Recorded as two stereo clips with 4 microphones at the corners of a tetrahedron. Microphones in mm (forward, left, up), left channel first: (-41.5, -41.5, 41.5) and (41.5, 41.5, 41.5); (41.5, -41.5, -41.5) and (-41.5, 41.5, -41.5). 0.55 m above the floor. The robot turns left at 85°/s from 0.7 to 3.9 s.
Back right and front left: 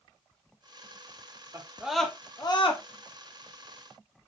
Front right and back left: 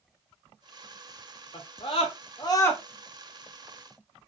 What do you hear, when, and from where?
1.5 s a scream: 10° right, 1.1 m; by 2.8 s 120° right, 1.1 m